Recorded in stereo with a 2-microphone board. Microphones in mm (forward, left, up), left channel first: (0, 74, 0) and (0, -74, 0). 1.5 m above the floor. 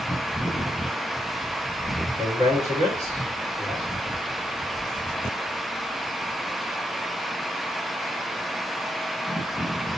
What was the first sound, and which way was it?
A man speaking, 25° right (ahead or behind).